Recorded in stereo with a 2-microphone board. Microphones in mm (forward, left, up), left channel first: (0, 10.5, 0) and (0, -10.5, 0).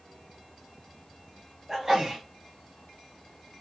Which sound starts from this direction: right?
A sneeze, at 1.7 s.